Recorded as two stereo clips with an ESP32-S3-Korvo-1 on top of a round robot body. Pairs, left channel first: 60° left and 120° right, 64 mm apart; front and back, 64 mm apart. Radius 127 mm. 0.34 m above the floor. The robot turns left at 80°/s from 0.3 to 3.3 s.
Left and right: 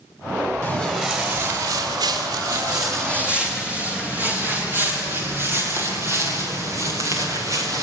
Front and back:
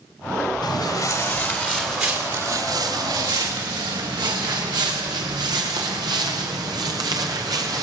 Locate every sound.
0.6 s footsteps: 5° left, 7 m; by 7.8 s 155° right, 6 m